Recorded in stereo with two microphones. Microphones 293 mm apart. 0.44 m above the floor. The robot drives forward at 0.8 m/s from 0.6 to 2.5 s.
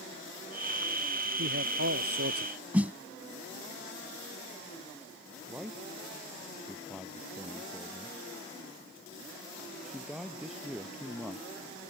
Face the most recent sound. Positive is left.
turn(degrees=0)  # may be behind; listen again after turning